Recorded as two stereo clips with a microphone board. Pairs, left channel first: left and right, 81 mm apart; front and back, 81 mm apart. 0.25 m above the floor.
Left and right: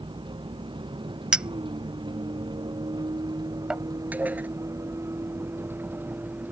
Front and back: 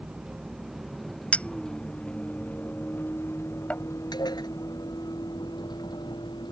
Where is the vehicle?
100° right; by 6.5 s 20° right.